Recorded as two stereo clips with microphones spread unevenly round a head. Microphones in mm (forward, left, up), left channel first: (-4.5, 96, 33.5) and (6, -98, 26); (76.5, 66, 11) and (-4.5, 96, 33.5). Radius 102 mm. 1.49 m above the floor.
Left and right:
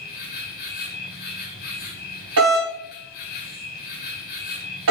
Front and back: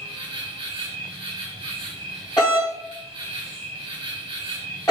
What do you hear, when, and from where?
0.0 s an insect: 140° left, 1.7 m
2.4 s a doorbell: 85° right, 2 m